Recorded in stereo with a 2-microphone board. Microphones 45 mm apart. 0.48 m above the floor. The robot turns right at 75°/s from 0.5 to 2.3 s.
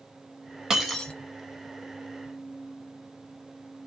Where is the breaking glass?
10° right, 0.9 m; by 1.1 s 20° left, 0.9 m.